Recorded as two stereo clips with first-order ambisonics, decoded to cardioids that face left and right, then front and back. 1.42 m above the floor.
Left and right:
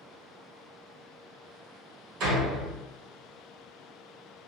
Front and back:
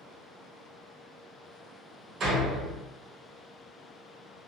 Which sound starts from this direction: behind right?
A door slam, at 2.2 s.